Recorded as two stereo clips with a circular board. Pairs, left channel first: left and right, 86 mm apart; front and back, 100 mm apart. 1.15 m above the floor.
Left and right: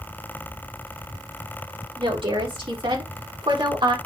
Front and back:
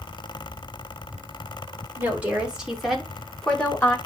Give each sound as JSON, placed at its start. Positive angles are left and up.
{"t": 2.0, "sound": "a woman speaking", "azimuth_deg": -105, "distance_m": 4.0}